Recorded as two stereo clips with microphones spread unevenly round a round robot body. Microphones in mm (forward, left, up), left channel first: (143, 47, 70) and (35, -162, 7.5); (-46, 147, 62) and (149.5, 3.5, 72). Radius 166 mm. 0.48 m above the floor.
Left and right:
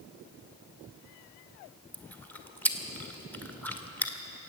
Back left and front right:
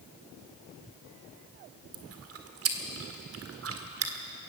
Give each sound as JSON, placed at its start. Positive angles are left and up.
{"t": 1.9, "sound": "chewing", "azimuth_deg": -30, "distance_m": 1.8}